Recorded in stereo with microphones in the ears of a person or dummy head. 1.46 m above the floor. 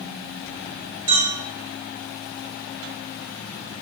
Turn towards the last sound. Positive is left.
turn(degrees=-10)  # may be behind; listen again after turning